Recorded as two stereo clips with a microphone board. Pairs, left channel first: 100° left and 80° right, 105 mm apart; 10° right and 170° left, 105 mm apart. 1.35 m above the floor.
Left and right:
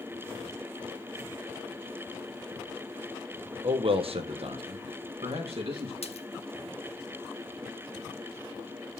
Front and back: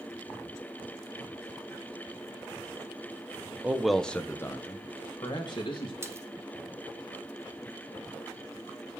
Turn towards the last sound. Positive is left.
turn(degrees=105)